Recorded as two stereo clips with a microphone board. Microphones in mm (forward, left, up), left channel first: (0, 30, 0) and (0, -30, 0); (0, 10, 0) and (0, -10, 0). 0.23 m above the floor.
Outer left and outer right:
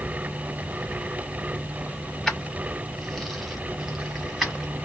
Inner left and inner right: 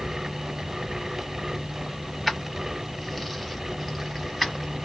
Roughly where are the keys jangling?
Centre.